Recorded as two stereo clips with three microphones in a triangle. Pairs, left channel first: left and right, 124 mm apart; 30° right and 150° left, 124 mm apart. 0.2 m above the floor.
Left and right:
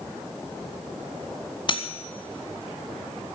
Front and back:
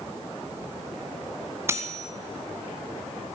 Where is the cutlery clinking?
95° left, 1.0 m.